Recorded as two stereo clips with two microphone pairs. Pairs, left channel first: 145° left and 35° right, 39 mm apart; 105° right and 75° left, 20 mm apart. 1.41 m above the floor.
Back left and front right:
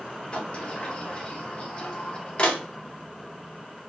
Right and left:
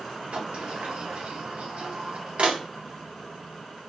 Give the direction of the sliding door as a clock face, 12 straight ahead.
9 o'clock.